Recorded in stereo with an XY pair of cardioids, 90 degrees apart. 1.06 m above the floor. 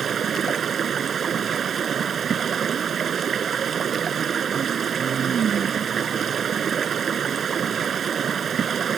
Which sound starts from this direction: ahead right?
Running water, at 0.0 s.